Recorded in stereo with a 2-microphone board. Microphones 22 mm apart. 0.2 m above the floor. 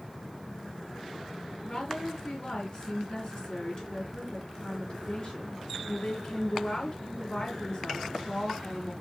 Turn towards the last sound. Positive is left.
turn(degrees=50)  # may be behind; listen again after turning